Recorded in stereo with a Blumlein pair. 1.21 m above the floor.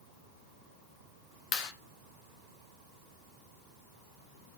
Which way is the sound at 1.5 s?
40° left.